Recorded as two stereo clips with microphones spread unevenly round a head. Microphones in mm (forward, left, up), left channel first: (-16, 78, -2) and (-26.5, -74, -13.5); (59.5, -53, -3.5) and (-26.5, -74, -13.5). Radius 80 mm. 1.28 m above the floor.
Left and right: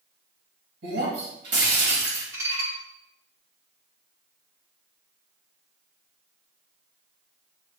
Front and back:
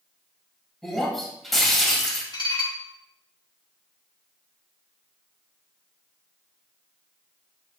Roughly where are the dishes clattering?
Ahead.